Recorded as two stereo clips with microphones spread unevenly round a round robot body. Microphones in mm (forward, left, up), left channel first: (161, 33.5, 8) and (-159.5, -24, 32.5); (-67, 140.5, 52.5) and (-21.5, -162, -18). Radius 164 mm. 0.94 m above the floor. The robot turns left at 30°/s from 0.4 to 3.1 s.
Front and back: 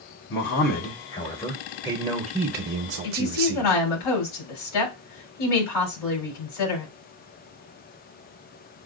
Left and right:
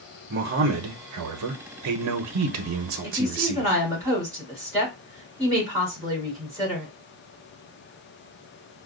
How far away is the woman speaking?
About 3 m.